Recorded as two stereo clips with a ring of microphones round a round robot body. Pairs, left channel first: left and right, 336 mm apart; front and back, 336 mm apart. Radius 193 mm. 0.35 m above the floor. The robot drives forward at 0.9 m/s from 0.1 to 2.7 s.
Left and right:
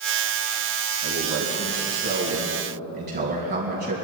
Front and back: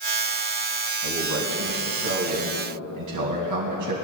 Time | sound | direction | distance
1.0 | a man speaking | 130° right | 3 m